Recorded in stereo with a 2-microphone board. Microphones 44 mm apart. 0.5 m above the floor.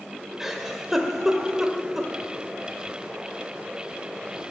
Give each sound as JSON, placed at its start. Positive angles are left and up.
{"t": 0.4, "sound": "a giggle", "side_deg": -5, "distance_m": 0.8}